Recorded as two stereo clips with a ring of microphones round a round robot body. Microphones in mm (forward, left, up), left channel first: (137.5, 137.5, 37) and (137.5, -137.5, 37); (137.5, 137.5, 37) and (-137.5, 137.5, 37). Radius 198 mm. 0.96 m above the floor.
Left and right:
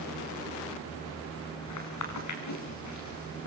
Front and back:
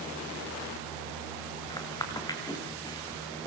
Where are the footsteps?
75° left, 6.5 m.